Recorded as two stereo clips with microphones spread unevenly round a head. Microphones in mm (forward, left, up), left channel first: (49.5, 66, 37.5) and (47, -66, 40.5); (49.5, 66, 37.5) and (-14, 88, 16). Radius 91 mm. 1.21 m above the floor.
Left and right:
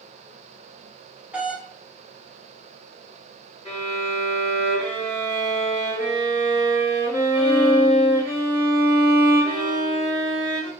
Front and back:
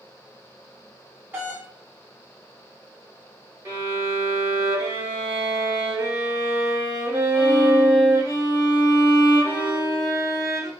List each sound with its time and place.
1.3 s a doorbell: 170° right, 0.8 m
3.6 s a violin: 135° left, 1.1 m